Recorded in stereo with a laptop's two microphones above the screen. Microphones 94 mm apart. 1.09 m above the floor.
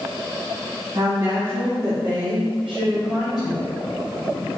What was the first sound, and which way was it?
A woman speaking, 35° right (ahead or behind).